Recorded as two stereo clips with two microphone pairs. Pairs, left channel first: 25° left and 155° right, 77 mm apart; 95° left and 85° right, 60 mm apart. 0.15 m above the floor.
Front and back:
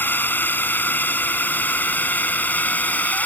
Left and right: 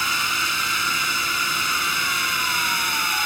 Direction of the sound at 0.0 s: 10° left.